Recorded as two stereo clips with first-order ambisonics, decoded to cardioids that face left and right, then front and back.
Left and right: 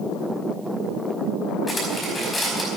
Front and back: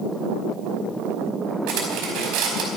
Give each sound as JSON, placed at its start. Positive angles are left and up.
{"t": 1.7, "sound": "cutlery clinking", "azimuth_deg": 160, "distance_m": 4.5}